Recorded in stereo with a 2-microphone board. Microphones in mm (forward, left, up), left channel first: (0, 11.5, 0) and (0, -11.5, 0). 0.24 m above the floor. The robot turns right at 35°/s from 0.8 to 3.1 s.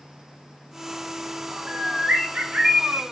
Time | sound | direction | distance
1.7 | a bird | 155° right | 3.5 m